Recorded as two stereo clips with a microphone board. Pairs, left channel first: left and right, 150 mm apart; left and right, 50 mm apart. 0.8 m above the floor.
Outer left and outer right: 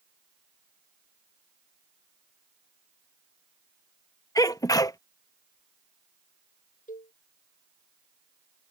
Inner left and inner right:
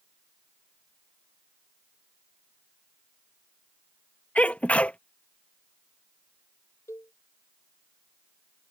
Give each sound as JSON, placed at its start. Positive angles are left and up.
{"t": 4.3, "sound": "a sneeze", "side_deg": 25}
{"t": 6.9, "sound": "a cowbell", "side_deg": 60}